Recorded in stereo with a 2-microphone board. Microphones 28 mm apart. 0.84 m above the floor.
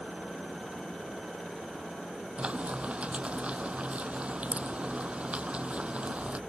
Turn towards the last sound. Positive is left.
turn(degrees=-50)  # may be behind; listen again after turning